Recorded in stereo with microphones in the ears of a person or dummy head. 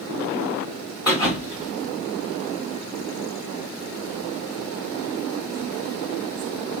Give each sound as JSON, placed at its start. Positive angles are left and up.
{"t": 1.1, "sound": "a thud", "side_deg": -10, "distance_m": 1.8}